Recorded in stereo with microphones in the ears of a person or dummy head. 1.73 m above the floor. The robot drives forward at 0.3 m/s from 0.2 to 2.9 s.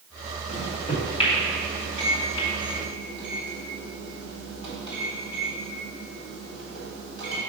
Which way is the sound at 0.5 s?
35° left (ahead or behind).